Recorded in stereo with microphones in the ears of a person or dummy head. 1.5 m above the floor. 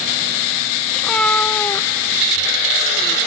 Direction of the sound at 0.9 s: 5° left (ahead or behind).